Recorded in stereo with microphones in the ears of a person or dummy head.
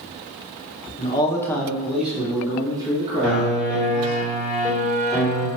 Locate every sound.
1.0 s a man speaking: 25° left (ahead or behind), 0.9 m; by 4.2 s 35° right (ahead or behind), 2 m
3.2 s a piano: 5° right (ahead or behind), 2.0 m